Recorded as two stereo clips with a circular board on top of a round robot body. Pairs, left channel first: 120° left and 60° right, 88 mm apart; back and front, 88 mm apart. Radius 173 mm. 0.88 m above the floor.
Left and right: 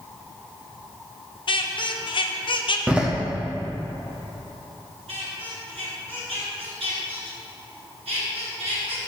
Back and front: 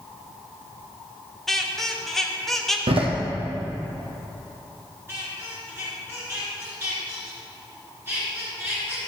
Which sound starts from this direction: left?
A squeak, at 1.5 s.